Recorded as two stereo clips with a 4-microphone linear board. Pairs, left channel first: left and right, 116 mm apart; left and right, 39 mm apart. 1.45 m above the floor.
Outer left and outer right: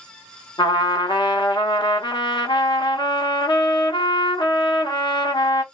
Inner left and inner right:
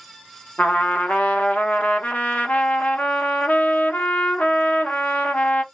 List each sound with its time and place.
0.6 s a trumpet: 40° left (ahead or behind), 0.8 m